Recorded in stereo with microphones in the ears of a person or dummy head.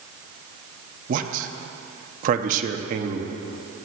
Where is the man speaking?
50° right (ahead or behind), 0.9 m.